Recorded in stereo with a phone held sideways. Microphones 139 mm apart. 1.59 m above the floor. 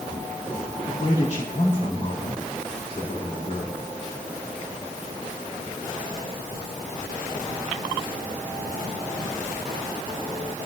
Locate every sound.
0.9 s a man speaking: 55° left (ahead or behind), 4.5 m